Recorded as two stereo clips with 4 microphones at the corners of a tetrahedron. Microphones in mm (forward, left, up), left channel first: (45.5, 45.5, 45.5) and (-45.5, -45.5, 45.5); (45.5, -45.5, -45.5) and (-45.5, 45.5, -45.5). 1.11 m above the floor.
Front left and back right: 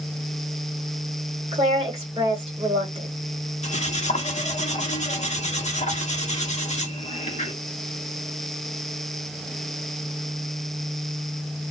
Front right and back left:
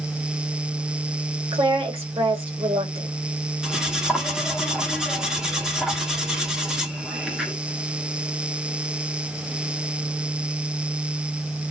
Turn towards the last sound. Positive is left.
turn(degrees=50)